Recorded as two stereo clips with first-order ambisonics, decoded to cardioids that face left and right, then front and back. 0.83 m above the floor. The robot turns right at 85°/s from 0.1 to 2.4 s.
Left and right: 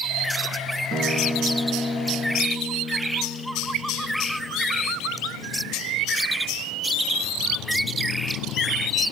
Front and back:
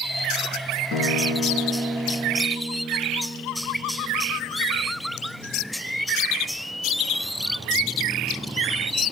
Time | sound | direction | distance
0.9 | a guitar | 25° right | 2 m